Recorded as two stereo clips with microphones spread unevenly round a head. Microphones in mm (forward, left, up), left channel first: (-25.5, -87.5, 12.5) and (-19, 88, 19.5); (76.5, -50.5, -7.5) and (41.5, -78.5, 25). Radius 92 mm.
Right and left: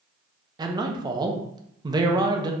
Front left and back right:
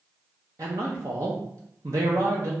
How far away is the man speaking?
About 0.7 m.